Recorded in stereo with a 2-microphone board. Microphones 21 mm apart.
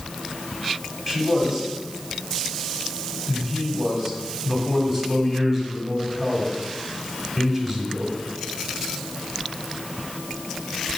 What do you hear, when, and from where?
1.1 s a man speaking: 15° right (ahead or behind), 1.2 m